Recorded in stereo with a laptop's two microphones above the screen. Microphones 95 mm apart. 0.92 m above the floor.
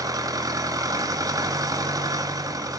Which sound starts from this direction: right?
An engine running, at 0.0 s.